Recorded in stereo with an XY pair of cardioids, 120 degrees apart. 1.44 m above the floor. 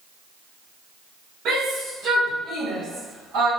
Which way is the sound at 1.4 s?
65° right.